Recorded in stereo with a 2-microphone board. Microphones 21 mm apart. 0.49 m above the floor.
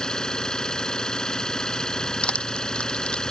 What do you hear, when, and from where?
0.0 s an engine running: 35° left (ahead or behind)
2.2 s crushing: 65° left (ahead or behind)